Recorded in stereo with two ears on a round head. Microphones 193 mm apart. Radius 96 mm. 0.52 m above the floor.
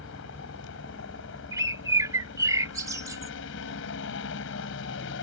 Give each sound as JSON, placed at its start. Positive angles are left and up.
{"t": 0.0, "sound": "a helicopter", "side_deg": 65}
{"t": 1.5, "sound": "a bird", "side_deg": -15}